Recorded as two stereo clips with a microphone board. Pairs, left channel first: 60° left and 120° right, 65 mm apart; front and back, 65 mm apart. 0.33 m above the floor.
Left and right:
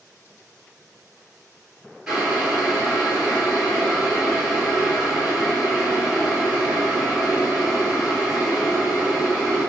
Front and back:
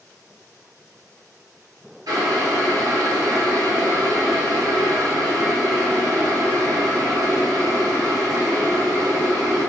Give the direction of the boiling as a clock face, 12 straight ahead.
7 o'clock.